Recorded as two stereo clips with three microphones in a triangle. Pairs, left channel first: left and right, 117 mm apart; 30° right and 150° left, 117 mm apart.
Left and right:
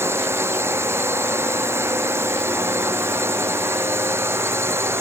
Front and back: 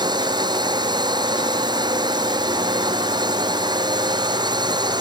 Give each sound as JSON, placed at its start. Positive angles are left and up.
{"t": 0.0, "sound": "a drone", "azimuth_deg": -160}